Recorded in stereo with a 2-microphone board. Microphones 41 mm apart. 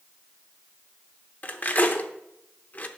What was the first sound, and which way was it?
Cutlery clinking, 40° left (ahead or behind).